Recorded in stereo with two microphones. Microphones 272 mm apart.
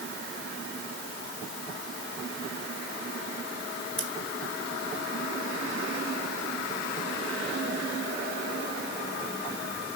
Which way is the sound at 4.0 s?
55° left (ahead or behind).